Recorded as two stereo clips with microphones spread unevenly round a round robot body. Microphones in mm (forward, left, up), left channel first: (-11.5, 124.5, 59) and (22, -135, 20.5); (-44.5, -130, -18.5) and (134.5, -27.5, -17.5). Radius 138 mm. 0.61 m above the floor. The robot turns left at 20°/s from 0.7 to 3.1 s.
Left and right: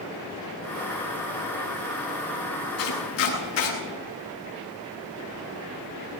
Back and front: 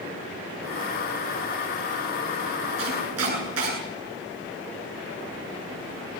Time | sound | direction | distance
2.8 | chopping | 65° left | 9.5 m